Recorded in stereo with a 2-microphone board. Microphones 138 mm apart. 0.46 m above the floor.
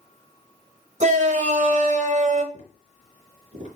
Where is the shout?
60° right (ahead or behind), 1.8 m.